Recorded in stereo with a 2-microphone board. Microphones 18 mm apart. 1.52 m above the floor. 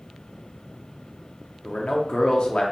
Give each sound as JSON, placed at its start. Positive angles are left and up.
{"t": 1.6, "sound": "a man speaking", "side_deg": 70, "distance_m": 0.6}